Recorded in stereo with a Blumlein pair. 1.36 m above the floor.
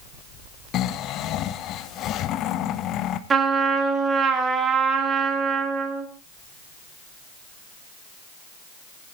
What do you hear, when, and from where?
0.7 s snoring: 35° left, 1.0 m
3.3 s a trumpet: 20° right, 2.5 m